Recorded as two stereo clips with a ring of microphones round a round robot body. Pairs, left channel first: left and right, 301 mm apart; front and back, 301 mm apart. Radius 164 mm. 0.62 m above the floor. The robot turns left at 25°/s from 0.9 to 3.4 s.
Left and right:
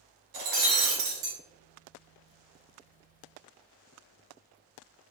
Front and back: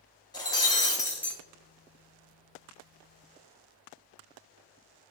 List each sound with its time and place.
0.3 s breaking glass: 75° right, 1.2 m; by 1.4 s 90° right, 1.2 m